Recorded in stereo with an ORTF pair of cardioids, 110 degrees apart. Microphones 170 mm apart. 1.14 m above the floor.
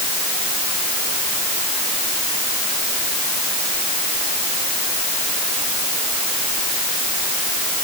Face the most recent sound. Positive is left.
No sound to turn to.